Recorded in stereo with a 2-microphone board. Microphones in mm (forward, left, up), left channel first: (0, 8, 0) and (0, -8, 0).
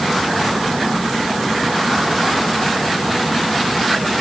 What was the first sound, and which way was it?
Only background noise.